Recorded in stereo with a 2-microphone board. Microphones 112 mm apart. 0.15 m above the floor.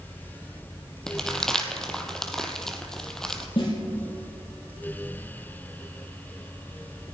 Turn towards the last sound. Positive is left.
turn(degrees=60)  # may be behind; listen again after turning